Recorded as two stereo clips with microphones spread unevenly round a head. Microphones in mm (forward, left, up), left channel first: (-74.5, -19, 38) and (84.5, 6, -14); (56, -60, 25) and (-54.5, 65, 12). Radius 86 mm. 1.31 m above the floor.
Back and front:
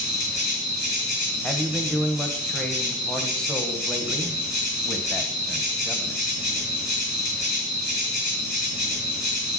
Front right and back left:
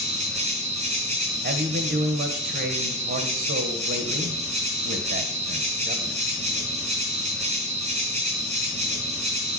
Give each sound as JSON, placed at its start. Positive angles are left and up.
{"t": 0.0, "sound": "an insect", "azimuth_deg": -175, "distance_m": 3.0}
{"t": 1.4, "sound": "a man speaking", "azimuth_deg": 100, "distance_m": 1.1}